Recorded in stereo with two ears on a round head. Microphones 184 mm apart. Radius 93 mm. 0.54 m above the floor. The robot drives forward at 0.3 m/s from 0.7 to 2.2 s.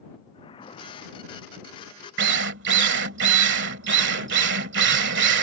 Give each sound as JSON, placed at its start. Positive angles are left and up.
{"t": 0.3, "sound": "a whoosh", "side_deg": 25}
{"t": 2.2, "sound": "a drill", "side_deg": -55}